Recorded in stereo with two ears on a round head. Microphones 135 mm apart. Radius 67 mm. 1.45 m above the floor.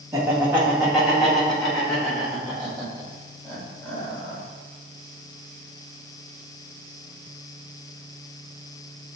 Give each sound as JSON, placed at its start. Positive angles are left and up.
{"t": 0.1, "sound": "laughter", "side_deg": -20, "distance_m": 0.9}